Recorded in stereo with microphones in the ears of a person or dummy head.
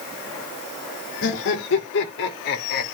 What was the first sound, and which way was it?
Laughter, 70° left (ahead or behind).